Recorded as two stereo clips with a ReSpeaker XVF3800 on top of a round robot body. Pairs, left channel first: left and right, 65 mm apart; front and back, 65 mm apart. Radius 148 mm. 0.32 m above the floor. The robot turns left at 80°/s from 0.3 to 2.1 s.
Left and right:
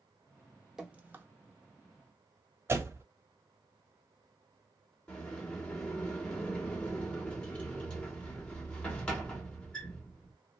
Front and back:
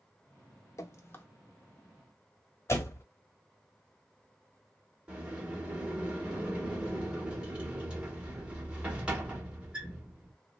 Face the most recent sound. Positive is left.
turn(degrees=135)